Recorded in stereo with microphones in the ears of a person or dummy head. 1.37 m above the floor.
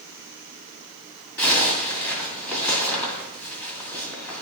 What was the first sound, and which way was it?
A zipper, 10° left (ahead or behind).